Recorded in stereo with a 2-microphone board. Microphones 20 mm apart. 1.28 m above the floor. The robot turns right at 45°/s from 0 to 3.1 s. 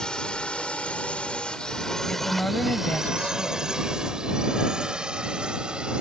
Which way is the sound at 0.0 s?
35° left (ahead or behind).